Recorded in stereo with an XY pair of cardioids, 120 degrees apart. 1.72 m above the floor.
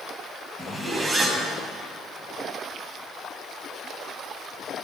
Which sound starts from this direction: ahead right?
A zipper, at 0.6 s.